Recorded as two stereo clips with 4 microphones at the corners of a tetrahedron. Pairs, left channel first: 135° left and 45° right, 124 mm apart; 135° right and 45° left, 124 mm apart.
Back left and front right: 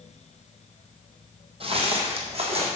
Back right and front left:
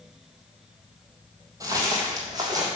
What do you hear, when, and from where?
1.6 s footsteps: 10° right, 1.6 m; by 2.7 s 15° right, 2.5 m